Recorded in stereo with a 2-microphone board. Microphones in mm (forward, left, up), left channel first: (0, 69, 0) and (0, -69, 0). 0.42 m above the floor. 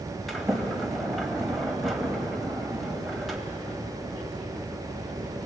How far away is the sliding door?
About 2.5 m.